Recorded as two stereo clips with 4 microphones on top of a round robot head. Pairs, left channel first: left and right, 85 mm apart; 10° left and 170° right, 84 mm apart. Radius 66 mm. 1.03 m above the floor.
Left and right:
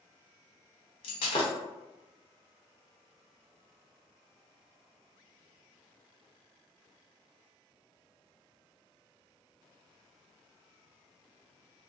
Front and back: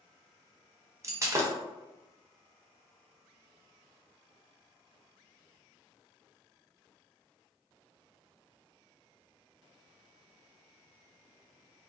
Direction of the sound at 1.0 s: 130° left.